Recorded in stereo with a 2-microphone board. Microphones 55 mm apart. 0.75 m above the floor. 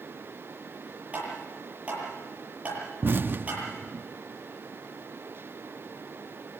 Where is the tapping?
25° right (ahead or behind), 9 m.